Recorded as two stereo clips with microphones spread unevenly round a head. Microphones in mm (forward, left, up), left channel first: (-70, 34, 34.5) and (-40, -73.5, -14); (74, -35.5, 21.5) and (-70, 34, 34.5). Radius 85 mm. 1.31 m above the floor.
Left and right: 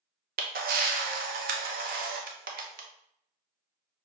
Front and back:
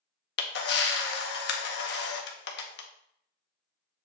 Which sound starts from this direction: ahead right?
A camera shutter, at 0.4 s.